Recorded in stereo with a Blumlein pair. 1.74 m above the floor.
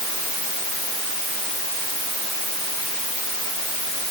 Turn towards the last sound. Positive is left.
No sound to turn to.